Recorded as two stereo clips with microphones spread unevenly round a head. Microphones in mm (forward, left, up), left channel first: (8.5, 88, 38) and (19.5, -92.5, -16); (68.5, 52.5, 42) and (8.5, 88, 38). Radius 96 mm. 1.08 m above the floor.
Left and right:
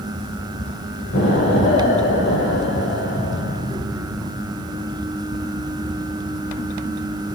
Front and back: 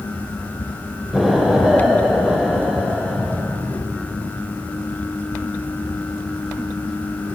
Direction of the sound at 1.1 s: 65° left.